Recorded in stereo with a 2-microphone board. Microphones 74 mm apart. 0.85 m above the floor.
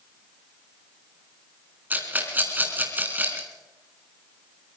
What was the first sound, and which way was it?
A rattle, 25° right (ahead or behind).